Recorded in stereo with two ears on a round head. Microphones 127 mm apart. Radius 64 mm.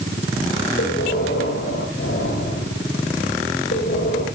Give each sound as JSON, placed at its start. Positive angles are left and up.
{"t": 0.8, "sound": "breathing", "side_deg": 85, "distance_m": 7.0}